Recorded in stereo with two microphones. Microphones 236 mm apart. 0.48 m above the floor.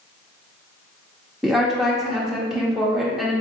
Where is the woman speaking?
Centre (ahead or behind), 0.7 m.